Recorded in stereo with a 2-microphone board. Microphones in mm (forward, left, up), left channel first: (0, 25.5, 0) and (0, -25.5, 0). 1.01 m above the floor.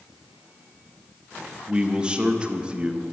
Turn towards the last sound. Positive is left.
turn(degrees=-20)  # may be behind; listen again after turning